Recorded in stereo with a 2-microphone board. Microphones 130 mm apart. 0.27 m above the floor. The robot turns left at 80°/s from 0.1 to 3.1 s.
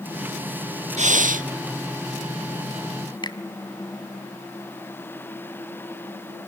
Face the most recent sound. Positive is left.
turn(degrees=35)  # may be behind; listen again after turning